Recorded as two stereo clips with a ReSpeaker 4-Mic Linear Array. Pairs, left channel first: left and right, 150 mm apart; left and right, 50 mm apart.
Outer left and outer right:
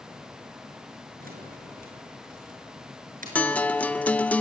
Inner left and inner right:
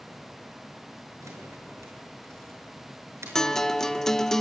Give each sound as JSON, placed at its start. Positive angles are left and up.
{"t": 1.2, "sound": "keys jangling", "side_deg": -75, "distance_m": 6.0}
{"t": 3.4, "sound": "a guitar", "side_deg": 10, "distance_m": 0.8}